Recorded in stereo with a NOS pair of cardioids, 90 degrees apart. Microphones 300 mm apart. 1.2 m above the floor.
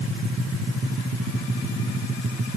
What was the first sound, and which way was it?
Only background noise.